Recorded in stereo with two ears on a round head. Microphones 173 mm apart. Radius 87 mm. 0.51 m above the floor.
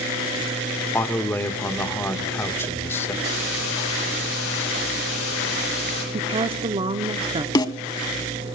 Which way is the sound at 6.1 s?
30° right (ahead or behind).